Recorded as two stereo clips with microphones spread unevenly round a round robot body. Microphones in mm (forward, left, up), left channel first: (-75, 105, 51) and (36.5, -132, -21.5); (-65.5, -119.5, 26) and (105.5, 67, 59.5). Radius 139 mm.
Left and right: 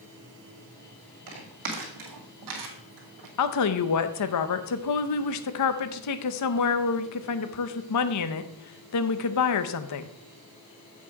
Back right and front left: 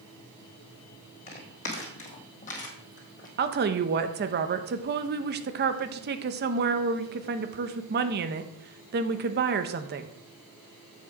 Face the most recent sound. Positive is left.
turn(degrees=95)